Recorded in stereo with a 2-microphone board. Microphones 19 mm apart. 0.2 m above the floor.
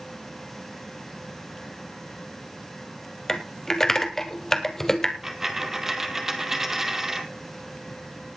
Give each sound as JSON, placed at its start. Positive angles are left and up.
{"t": 3.3, "sound": "typing on a keyboard", "side_deg": 25, "distance_m": 1.6}
{"t": 5.2, "sound": "a dropped coin", "side_deg": -15, "distance_m": 1.9}